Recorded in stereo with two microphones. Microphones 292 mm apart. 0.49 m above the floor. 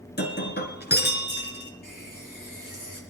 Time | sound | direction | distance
0.2 | breaking glass | 35° left (ahead or behind) | 1.9 m
1.8 | a running tap | 85° left | 5.5 m